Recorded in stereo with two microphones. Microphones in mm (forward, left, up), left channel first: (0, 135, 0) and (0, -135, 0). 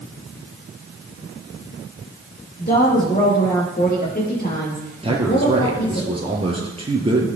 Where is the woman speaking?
35° left (ahead or behind), 6 m.